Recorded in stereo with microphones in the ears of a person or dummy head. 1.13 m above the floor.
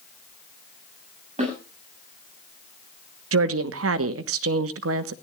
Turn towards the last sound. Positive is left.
turn(degrees=-65)  # may be behind; listen again after turning